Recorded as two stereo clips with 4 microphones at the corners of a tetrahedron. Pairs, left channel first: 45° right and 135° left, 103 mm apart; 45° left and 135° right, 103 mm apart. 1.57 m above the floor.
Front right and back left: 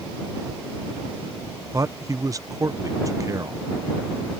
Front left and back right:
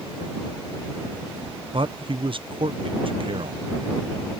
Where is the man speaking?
170° right.